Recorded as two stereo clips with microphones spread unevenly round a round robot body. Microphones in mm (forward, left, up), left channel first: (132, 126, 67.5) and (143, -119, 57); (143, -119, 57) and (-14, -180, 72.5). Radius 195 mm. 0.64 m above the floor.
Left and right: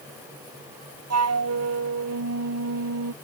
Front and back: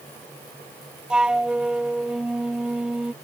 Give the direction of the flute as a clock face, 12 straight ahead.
2 o'clock.